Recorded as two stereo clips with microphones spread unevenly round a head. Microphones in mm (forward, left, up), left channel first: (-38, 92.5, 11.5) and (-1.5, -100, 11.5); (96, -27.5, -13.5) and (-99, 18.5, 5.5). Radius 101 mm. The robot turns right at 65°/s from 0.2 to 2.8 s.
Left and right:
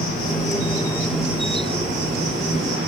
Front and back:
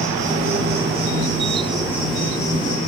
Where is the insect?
125° left, 1.2 m; by 2.9 s 65° right, 1.2 m.